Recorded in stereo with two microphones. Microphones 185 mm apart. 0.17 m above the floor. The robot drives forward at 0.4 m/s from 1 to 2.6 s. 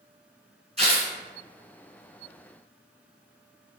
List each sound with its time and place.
0.8 s tearing paper: 35° right (ahead or behind), 1.8 m